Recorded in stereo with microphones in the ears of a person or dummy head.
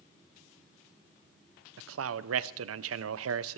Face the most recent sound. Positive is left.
turn(degrees=-75)  # may be behind; listen again after turning